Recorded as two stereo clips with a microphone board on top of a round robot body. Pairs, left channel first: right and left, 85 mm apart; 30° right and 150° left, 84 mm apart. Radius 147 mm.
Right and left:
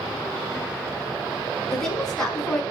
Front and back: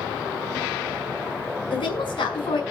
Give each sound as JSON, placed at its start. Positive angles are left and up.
{"t": 1.7, "sound": "a woman speaking", "azimuth_deg": -5, "distance_m": 6.0}